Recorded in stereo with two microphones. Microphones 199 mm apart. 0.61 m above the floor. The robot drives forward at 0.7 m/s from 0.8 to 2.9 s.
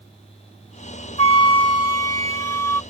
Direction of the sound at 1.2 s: 30° left (ahead or behind).